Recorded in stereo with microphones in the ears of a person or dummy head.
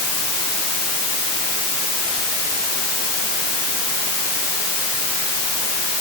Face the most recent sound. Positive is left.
No sound to turn to.